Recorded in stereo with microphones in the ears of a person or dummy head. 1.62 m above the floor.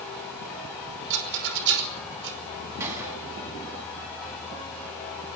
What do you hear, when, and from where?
1.1 s a rattle: 65° right (ahead or behind), 5 m
2.8 s a gunshot: 20° right (ahead or behind), 9.5 m